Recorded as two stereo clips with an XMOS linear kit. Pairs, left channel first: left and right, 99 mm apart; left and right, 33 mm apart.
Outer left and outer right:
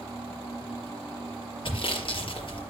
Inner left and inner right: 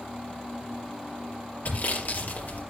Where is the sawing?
60° left (ahead or behind), 4 m.